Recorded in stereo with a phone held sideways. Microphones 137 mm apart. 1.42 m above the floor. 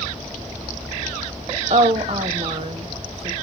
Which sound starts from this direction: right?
A woman speaking, at 1.7 s.